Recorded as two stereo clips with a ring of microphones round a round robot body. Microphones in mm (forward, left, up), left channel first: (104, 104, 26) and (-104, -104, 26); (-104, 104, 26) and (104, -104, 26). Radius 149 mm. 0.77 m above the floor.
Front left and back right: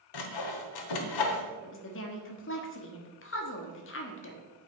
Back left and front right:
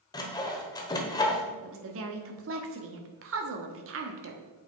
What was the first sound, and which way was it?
Sawing, 60° left.